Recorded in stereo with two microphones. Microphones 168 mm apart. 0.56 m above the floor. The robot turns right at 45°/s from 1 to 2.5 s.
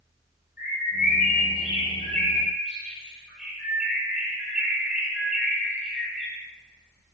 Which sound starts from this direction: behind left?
A bird, at 0.6 s.